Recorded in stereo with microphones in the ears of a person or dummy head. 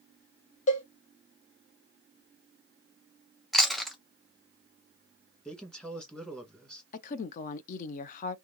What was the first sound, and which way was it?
A cowbell, 40° left (ahead or behind).